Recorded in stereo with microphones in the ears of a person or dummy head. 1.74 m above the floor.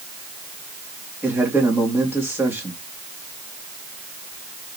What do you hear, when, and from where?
1.2 s a man speaking: 10° right (ahead or behind), 3 m